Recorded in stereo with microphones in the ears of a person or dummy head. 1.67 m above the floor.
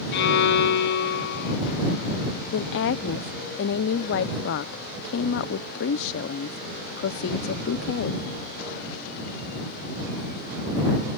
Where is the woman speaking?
60° left (ahead or behind).